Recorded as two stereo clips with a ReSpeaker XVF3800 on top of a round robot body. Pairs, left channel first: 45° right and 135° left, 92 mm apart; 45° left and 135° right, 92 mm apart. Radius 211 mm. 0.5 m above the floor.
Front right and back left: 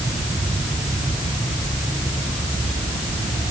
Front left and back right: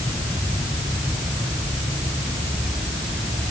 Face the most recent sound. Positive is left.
No sound to turn to.